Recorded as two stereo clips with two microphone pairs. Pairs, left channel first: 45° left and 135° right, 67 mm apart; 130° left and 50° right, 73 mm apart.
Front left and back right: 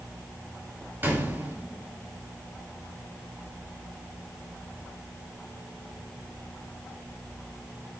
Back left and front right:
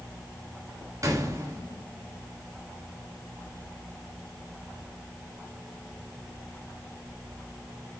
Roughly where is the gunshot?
Right.